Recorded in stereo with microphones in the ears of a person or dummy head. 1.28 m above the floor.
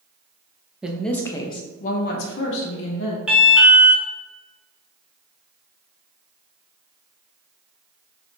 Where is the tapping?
I don't hear tapping.